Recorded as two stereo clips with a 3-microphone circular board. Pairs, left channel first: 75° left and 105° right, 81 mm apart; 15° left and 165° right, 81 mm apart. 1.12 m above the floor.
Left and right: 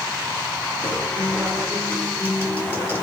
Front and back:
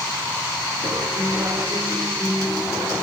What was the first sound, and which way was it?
A guitar, 140° left.